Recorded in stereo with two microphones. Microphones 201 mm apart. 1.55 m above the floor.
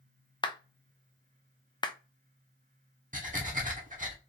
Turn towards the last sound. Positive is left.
turn(degrees=-40)  # may be behind; listen again after turning